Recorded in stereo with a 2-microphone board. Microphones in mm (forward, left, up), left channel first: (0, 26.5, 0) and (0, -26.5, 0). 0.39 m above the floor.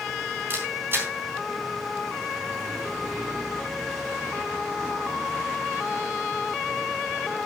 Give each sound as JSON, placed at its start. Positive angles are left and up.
{"t": 0.5, "sound": "a camera shutter", "side_deg": -40, "distance_m": 3.5}